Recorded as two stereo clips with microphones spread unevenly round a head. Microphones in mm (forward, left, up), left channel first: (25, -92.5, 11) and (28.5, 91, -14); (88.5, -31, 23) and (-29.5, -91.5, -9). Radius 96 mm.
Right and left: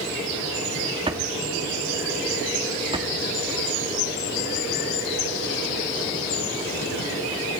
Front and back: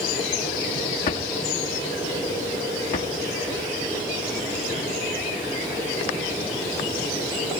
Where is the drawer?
25° left, 1.4 m.